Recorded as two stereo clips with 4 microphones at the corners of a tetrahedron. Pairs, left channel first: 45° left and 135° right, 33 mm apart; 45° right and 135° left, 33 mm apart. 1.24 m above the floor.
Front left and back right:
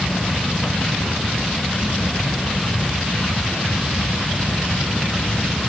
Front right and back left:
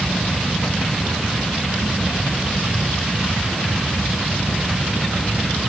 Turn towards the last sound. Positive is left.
No sound to turn to.